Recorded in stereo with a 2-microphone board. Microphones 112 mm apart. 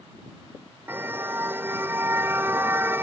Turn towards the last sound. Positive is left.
turn(degrees=-20)  # may be behind; listen again after turning